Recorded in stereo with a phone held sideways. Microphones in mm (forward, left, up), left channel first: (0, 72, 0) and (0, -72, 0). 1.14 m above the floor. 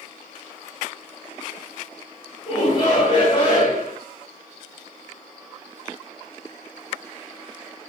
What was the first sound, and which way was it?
A shout, 35° left (ahead or behind).